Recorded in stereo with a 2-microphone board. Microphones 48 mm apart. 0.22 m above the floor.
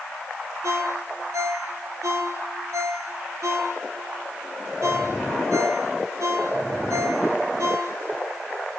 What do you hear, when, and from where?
0.6 s a ringtone: 75° right (ahead or behind), 4 m